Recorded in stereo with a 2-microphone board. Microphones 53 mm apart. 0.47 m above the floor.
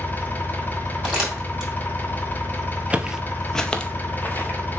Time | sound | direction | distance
0.0 | an engine running | 35° left (ahead or behind) | 1.2 m
1.0 | crumpling | 10° right (ahead or behind) | 3 m
2.9 | footsteps | 25° right (ahead or behind) | 0.5 m